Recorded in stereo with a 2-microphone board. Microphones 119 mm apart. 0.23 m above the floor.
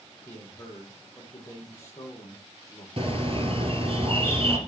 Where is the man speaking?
25° left (ahead or behind), 7.5 m.